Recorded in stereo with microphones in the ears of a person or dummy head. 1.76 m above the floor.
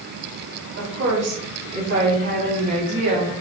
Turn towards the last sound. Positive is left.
turn(degrees=-65)  # may be behind; listen again after turning